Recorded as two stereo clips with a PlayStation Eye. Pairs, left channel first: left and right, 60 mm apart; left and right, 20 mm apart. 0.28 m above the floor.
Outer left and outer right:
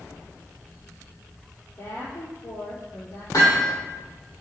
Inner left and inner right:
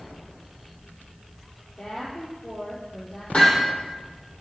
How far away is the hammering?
About 8 m.